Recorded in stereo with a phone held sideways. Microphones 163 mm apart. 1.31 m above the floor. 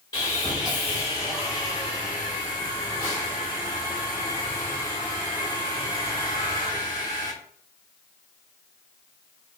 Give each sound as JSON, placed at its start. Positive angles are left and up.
{"t": 0.1, "sound": "sawing", "side_deg": 25, "distance_m": 2.0}